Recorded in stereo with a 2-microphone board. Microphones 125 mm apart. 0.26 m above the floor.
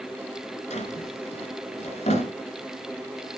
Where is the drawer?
65° left (ahead or behind), 2 m.